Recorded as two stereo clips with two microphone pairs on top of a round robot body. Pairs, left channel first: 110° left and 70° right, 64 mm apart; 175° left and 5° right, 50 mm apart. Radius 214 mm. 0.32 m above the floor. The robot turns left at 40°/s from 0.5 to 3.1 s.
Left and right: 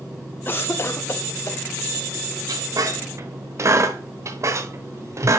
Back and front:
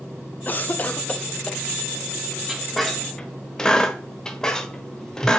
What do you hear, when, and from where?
0.5 s a cough: 150° left, 1.3 m; by 1.6 s 105° left, 1.3 m
2.5 s a squeak: 85° right, 1.2 m; by 5.4 s 110° right, 1.2 m